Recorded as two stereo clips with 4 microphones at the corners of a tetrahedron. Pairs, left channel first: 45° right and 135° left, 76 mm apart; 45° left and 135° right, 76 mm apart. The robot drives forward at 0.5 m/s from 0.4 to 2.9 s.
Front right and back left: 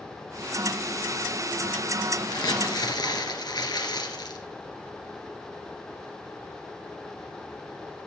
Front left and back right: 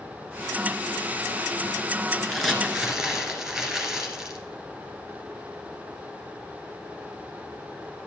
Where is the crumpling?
50° right, 1.8 m; by 4.4 s 60° right, 1.7 m.